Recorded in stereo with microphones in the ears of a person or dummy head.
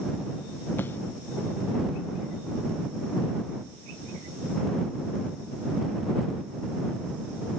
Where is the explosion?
10° left (ahead or behind).